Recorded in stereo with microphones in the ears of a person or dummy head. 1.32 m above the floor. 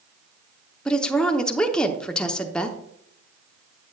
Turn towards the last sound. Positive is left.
turn(degrees=5)  # may be behind; listen again after turning